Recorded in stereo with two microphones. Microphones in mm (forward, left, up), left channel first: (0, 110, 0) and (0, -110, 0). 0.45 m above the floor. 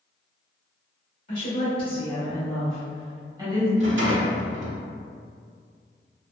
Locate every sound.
1.3 s a woman speaking: 35° left (ahead or behind), 1.2 m; by 3.7 s 20° right (ahead or behind), 1.1 m
3.8 s a rattle: 60° right (ahead or behind), 0.6 m